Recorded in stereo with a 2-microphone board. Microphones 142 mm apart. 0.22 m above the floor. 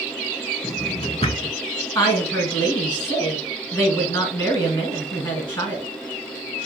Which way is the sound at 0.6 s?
45° left (ahead or behind).